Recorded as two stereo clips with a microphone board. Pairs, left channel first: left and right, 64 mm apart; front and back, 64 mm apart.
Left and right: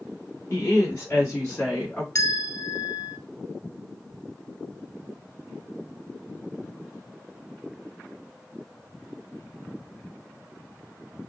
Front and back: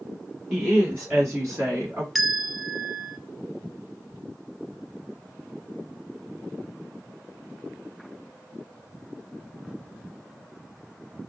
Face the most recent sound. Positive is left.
turn(degrees=95)